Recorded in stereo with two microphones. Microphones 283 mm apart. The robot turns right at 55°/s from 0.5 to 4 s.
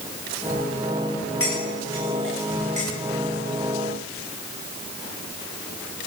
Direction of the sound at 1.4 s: 50° left (ahead or behind).